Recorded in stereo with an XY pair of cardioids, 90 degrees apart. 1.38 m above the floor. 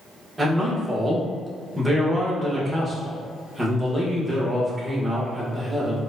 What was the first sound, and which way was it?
A man speaking, 20° right.